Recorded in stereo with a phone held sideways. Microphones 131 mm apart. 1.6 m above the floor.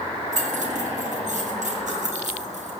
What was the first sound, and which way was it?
Keys jangling, 65° right (ahead or behind).